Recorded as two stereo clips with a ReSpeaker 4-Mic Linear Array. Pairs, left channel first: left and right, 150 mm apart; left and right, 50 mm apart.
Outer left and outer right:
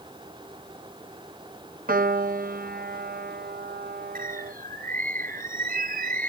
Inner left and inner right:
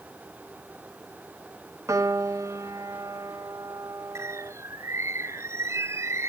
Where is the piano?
70° right (ahead or behind).